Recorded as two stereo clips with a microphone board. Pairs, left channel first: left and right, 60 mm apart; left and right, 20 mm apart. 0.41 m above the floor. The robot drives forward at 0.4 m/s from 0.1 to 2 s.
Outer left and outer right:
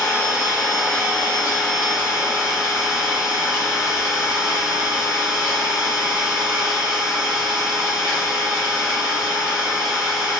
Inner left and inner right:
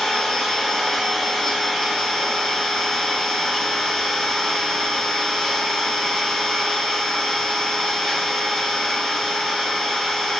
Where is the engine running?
30° left (ahead or behind), 1.3 m; by 10.4 s 20° left (ahead or behind), 1.9 m.